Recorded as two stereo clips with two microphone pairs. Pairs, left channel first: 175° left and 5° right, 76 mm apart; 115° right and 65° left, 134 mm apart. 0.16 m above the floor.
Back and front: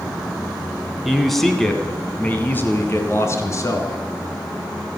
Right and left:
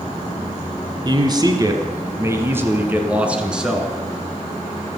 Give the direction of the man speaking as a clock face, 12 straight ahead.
9 o'clock.